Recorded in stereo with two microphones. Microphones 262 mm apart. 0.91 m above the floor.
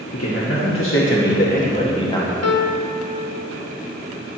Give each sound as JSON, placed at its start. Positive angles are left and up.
{"t": 0.1, "sound": "a man speaking", "side_deg": 65, "distance_m": 1.4}
{"t": 2.4, "sound": "a piano", "side_deg": 75, "distance_m": 0.6}